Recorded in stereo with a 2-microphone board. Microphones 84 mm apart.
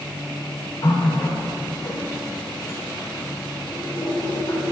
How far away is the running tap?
About 2.5 m.